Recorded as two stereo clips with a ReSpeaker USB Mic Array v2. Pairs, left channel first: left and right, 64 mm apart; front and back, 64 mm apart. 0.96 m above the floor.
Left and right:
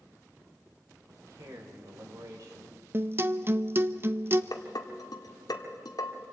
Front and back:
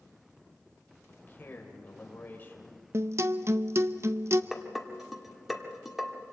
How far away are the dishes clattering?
About 1.7 m.